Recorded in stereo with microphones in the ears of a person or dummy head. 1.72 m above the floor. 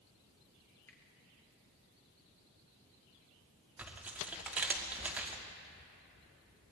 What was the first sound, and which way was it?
A finger snap, 10° left (ahead or behind).